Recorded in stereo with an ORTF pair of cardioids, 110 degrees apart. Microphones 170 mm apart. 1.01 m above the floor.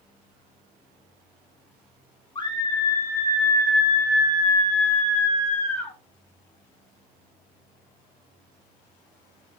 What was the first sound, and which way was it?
A scream, 30° left.